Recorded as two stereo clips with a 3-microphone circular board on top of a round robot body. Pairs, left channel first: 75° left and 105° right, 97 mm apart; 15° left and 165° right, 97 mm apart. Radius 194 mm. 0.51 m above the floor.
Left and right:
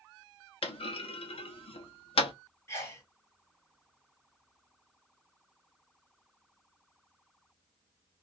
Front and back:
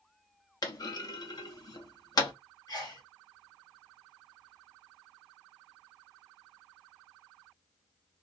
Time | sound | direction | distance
0.6 | a clunk | 60° left | 0.9 m
2.7 | a sneeze | 25° left | 1.7 m